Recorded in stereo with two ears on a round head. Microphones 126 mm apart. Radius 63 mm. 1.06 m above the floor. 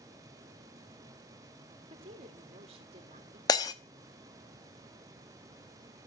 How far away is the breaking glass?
About 0.8 m.